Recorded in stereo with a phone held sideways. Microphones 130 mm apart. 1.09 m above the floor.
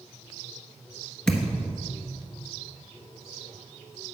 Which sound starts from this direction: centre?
A thud, at 1.3 s.